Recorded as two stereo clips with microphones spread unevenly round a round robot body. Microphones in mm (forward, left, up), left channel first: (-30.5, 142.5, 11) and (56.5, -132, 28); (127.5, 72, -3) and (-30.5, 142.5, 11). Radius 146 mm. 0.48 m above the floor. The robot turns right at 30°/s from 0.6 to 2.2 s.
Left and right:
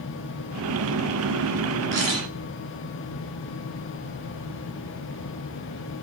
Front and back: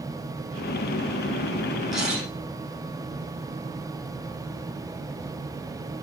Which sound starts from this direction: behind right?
A camera shutter, at 1.9 s.